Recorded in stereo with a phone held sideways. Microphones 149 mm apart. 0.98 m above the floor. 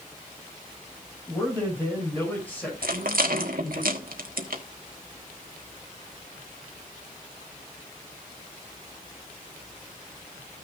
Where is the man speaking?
15° left (ahead or behind), 7 m; by 3.8 s 10° left (ahead or behind), 5 m.